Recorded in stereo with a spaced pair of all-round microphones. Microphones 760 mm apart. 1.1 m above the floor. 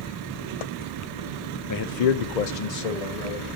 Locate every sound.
1.7 s a man speaking: 25° left (ahead or behind), 0.6 m; by 3.5 s 55° left (ahead or behind), 1.9 m